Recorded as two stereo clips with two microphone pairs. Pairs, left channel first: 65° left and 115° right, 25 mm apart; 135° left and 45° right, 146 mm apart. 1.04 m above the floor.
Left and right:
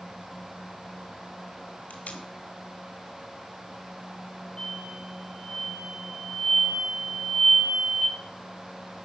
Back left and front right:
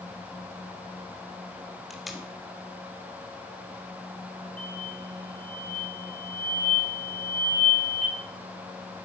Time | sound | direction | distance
1.9 | tape being pulled | 45° left | 1.9 m
4.6 | an explosion | 125° left | 5.5 m